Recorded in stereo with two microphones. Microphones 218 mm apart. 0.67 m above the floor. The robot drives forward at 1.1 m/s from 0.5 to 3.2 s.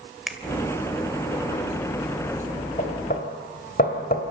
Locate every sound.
0.3 s a finger snap: centre (ahead or behind), 1.7 m
2.8 s knocking: 40° left (ahead or behind), 3 m; by 4.2 s 45° left (ahead or behind), 3 m